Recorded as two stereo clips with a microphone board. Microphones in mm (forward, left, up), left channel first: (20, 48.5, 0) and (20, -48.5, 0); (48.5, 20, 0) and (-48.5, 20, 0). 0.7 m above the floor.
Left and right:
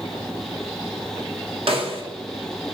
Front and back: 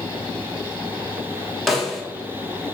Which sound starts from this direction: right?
A snare drum, at 1.7 s.